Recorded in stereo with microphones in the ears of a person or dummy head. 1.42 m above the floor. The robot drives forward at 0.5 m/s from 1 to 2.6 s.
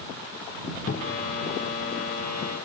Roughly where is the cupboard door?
Left.